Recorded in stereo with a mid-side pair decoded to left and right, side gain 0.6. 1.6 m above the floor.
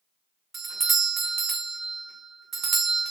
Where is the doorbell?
45° right, 0.9 m.